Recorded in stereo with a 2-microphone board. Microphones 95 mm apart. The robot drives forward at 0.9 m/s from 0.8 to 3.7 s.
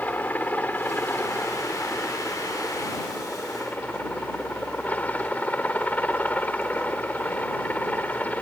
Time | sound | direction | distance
0.0 | a helicopter | 20° left (ahead or behind) | ?